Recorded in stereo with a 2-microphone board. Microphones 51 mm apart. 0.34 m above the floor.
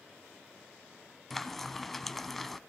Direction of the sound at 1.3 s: 5° left (ahead or behind).